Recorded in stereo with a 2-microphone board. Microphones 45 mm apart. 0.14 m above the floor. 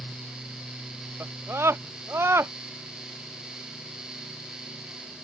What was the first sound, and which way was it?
A scream, 65° right (ahead or behind).